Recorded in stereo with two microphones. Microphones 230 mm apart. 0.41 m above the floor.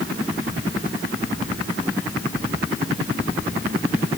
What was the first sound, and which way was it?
Only background noise.